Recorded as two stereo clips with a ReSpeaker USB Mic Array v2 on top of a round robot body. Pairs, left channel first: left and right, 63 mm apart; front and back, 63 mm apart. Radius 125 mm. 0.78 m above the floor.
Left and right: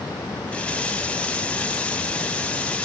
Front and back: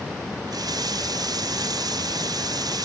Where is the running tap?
165° left, 2 m.